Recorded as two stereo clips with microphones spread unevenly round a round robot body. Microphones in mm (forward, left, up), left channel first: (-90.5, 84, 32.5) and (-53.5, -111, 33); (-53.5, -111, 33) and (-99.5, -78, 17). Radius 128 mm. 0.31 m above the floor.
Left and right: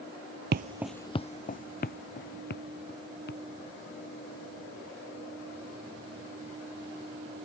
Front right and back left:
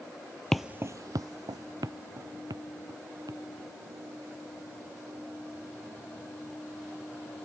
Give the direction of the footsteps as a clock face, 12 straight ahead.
4 o'clock.